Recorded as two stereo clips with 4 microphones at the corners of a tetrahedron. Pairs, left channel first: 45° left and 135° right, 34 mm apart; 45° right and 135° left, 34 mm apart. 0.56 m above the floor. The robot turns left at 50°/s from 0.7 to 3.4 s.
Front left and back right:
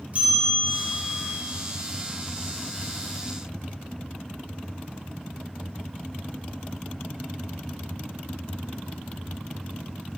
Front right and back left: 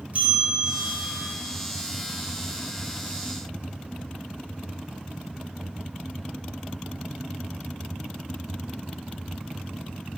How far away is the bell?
About 1.6 m.